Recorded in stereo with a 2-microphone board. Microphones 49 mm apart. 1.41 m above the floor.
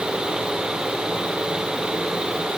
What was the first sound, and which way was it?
Only background noise.